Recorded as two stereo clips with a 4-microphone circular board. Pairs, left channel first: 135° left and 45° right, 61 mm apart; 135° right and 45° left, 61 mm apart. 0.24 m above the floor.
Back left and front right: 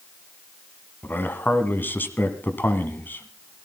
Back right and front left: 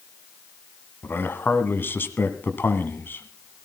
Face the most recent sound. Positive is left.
turn(degrees=180)